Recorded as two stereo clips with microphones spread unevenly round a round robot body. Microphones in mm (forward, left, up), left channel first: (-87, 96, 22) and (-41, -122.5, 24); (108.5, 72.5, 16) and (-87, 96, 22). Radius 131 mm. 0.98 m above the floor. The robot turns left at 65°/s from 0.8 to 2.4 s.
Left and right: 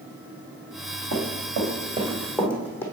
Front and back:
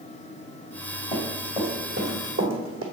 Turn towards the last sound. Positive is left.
turn(degrees=180)